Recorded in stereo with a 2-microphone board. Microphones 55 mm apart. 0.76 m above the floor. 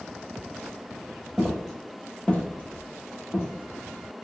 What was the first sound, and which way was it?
Footsteps, 10° right (ahead or behind).